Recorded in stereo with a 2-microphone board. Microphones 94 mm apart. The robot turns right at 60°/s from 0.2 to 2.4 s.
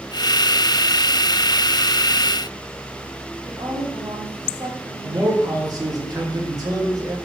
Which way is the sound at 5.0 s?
40° right (ahead or behind).